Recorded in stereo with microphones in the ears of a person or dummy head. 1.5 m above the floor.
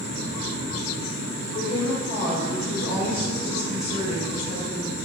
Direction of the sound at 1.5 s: 45° left (ahead or behind).